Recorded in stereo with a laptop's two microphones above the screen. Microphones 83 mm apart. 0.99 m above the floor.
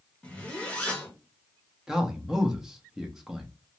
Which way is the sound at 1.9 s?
5° right (ahead or behind).